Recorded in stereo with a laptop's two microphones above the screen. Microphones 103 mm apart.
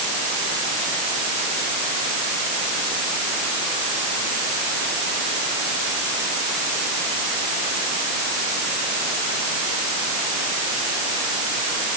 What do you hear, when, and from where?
Only background noise.